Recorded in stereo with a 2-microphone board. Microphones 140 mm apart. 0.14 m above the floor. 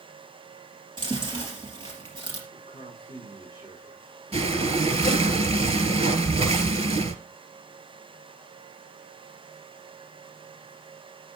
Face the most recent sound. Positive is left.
turn(degrees=-50)  # may be behind; listen again after turning